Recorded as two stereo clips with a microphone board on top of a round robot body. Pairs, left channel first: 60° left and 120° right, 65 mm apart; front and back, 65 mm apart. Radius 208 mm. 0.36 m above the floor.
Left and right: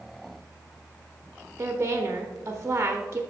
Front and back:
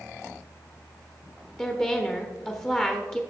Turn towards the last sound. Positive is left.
turn(degrees=-65)